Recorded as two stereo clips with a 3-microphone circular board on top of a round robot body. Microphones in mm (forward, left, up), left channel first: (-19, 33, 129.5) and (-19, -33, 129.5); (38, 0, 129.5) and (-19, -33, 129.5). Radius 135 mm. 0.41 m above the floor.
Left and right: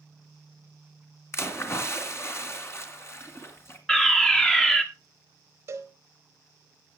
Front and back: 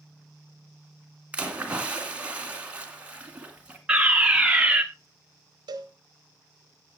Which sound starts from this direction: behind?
A fire alarm, at 3.9 s.